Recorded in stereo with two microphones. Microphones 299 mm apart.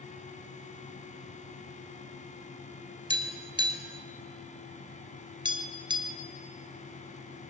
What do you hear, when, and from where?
3.1 s tapping: 15° right (ahead or behind), 2.0 m